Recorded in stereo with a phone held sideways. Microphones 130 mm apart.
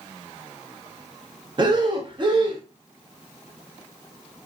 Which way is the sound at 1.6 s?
35° right (ahead or behind).